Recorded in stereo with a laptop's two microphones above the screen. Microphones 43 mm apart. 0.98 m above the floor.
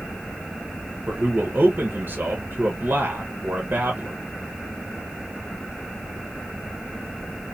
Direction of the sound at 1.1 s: 50° right (ahead or behind).